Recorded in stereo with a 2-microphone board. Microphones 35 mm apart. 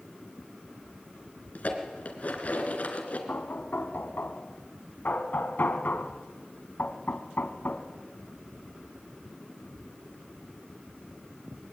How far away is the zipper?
I don't hear a zipper.